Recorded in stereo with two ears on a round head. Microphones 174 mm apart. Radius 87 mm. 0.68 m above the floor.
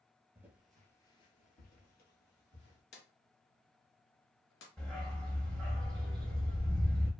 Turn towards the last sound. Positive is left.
turn(degrees=5)  # may be behind; listen again after turning